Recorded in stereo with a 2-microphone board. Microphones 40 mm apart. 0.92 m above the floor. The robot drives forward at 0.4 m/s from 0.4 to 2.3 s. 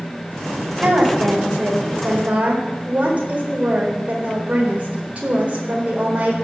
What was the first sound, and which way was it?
A woman speaking, 30° right (ahead or behind).